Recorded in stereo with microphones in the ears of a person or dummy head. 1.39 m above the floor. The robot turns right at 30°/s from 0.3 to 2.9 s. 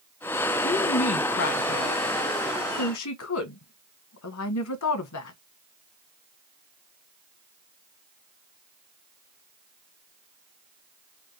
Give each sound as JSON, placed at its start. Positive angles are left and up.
{"t": 0.6, "sound": "a woman speaking", "side_deg": 30, "distance_m": 1.2}